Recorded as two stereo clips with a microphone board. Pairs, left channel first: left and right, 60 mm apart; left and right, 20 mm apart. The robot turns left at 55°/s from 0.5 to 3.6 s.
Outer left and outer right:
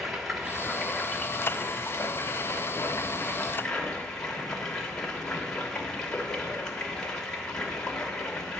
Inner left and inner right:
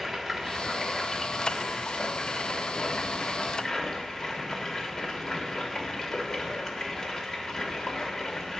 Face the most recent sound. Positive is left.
turn(degrees=10)